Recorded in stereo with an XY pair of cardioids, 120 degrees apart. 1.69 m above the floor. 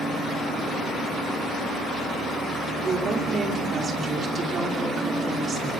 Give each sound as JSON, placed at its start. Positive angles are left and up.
{"t": 2.8, "sound": "a woman speaking", "azimuth_deg": -35, "distance_m": 5.5}